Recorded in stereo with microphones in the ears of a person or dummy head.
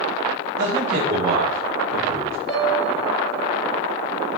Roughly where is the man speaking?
Right.